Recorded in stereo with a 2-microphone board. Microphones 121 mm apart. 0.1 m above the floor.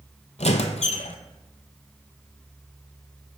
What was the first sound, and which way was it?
A squeak, 65° left (ahead or behind).